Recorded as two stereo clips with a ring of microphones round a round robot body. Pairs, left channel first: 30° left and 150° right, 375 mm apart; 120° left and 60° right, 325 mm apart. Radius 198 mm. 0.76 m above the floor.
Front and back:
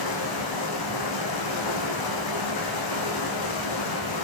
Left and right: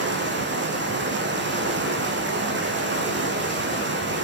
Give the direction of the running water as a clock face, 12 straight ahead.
12 o'clock.